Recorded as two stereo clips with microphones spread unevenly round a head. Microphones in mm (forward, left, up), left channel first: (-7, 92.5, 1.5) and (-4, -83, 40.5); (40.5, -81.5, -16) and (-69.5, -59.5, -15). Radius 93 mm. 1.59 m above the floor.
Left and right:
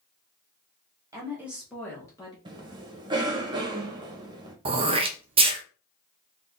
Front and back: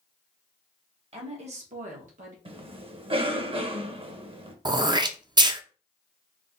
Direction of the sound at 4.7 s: 140° right.